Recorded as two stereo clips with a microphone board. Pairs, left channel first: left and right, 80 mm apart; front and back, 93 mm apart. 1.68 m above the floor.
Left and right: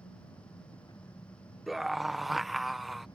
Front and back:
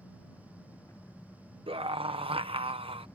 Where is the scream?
175° right.